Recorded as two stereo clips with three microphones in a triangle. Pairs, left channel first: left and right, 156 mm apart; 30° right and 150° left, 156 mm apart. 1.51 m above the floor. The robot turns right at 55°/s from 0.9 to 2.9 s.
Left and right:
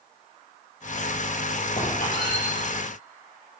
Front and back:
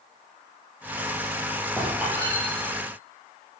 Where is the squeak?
55° left, 4.5 m; by 2.4 s 90° left, 4.5 m.